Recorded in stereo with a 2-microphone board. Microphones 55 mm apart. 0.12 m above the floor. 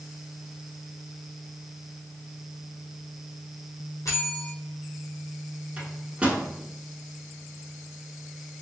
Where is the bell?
80° left, 1.3 m.